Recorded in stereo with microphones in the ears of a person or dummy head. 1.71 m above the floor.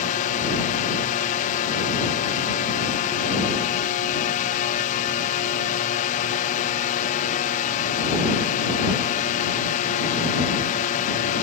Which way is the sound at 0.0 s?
45° left (ahead or behind).